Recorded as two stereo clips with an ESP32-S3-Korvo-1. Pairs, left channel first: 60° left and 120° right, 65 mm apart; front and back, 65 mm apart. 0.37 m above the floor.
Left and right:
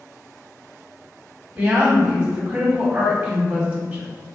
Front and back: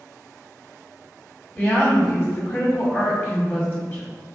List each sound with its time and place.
1.6 s a woman speaking: 55° right, 2.0 m